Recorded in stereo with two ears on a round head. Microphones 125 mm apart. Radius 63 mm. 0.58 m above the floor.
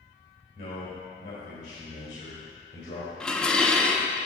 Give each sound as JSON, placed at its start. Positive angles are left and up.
{"t": 0.6, "sound": "a man speaking", "side_deg": 70, "distance_m": 3.0}
{"t": 3.2, "sound": "dishes clattering", "side_deg": 5, "distance_m": 0.6}